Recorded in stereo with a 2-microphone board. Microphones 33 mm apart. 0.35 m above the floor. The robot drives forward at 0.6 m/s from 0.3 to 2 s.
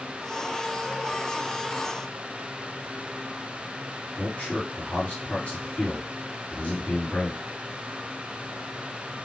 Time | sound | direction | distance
4.2 | a man speaking | 35° left (ahead or behind) | 2.5 m